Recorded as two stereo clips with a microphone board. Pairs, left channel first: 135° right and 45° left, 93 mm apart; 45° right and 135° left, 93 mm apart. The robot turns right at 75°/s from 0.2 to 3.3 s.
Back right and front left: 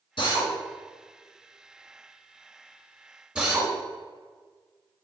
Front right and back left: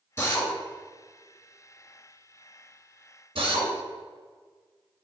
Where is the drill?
105° right, 2 m; by 3.7 s 125° left, 2 m.